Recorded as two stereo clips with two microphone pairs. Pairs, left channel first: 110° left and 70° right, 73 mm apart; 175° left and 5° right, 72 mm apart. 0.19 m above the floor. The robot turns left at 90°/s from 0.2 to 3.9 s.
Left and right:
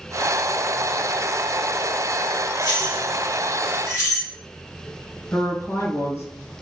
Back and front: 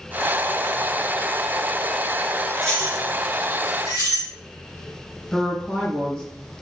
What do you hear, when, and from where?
2.6 s keys jangling: 95° right, 1.9 m; by 4.3 s 150° left, 1.9 m
5.3 s a woman speaking: 105° left, 1.4 m